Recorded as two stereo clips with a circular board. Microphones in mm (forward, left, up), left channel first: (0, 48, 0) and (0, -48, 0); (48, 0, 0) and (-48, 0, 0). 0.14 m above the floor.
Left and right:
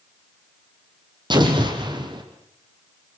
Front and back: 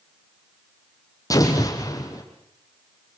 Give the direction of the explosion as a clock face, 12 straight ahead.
2 o'clock.